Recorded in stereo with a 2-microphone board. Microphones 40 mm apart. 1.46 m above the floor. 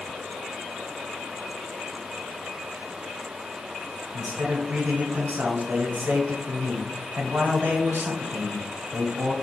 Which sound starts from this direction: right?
A man speaking, at 4.1 s.